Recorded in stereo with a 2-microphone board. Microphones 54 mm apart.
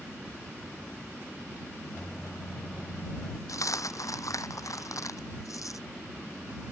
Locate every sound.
1.9 s a microwave: 40° left (ahead or behind)
3.5 s a dropped coin: 85° left